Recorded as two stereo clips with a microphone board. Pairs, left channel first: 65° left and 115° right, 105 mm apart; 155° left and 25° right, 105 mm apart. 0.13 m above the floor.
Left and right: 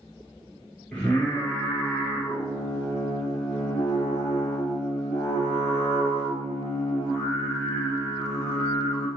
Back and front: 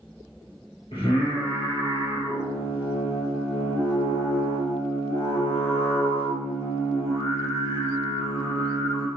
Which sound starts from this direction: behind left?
Singing, at 0.9 s.